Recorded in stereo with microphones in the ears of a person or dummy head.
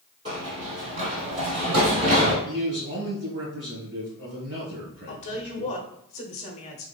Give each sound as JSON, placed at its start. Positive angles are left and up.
{"t": 0.2, "sound": "running footsteps", "side_deg": -30, "distance_m": 2.0}
{"t": 2.5, "sound": "a man speaking", "side_deg": -45, "distance_m": 1.5}
{"t": 5.1, "sound": "a woman speaking", "side_deg": 35, "distance_m": 0.9}